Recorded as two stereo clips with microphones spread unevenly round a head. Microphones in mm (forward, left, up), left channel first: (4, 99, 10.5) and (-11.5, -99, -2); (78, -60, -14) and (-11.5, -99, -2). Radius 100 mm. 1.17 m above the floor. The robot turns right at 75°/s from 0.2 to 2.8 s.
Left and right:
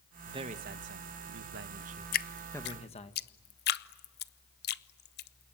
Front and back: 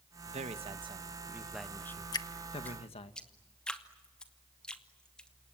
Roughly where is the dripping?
Ahead left.